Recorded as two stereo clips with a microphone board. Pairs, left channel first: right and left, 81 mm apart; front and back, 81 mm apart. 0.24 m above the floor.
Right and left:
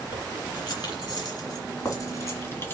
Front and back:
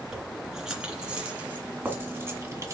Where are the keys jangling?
95° right, 3 m; by 2.8 s 145° right, 1.5 m.